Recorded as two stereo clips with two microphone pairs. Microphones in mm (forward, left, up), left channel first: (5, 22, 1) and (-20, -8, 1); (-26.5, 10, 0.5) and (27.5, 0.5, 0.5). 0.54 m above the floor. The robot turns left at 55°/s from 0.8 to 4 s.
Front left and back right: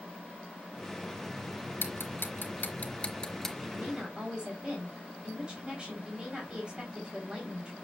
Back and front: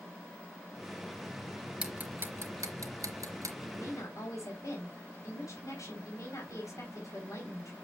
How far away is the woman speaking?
About 3.5 m.